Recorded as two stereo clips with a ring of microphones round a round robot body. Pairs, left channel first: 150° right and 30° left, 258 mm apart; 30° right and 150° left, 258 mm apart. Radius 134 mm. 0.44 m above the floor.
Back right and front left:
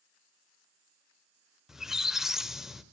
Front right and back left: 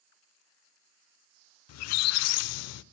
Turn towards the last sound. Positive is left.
turn(degrees=-60)